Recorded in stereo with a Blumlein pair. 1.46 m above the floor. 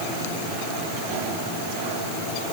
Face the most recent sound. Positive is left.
No sound to turn to.